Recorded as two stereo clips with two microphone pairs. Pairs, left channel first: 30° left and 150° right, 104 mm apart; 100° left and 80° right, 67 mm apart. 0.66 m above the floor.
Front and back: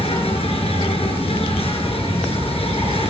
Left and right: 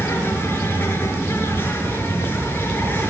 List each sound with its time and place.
0.0 s an insect: 40° left, 7 m